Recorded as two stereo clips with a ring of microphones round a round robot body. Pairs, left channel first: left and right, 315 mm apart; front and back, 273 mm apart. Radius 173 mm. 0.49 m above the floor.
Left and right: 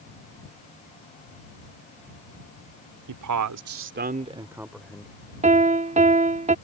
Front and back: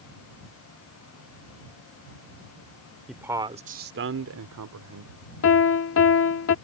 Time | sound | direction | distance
3.1 | a man speaking | 90° right | ?
5.4 | a piano | 25° right | ?